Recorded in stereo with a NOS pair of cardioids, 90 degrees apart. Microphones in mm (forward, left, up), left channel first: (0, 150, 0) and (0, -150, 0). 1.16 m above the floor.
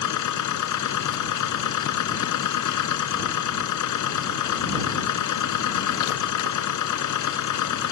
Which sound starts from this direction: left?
A machine running, at 0.0 s.